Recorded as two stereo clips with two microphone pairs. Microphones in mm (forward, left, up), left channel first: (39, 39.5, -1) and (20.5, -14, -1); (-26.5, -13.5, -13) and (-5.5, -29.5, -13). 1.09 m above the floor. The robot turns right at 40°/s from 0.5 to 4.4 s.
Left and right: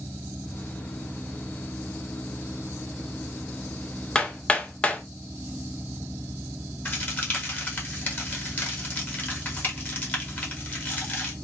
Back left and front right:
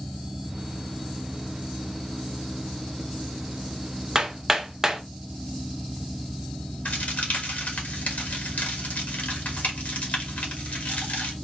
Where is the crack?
130° left, 1.2 m.